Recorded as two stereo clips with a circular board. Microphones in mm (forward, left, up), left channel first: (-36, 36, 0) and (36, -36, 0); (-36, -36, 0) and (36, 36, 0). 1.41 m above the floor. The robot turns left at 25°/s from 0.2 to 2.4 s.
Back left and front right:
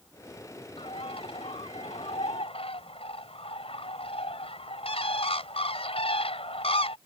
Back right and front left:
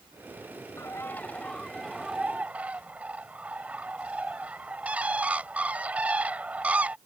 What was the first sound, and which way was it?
A bird, 160° left.